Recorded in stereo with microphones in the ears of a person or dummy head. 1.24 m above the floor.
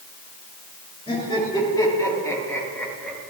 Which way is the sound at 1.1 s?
20° left (ahead or behind).